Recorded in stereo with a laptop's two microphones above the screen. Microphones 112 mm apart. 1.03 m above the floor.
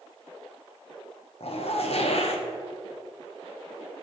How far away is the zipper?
About 0.7 m.